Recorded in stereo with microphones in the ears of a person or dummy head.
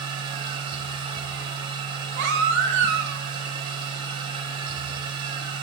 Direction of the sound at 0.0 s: 30° right (ahead or behind).